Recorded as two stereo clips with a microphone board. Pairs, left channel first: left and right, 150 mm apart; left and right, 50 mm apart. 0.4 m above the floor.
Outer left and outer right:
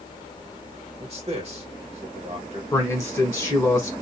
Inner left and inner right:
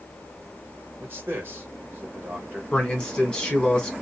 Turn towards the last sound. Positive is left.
turn(degrees=15)  # may be behind; listen again after turning